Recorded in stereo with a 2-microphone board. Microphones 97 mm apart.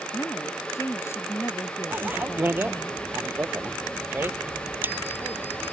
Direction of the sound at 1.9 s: 20° right (ahead or behind).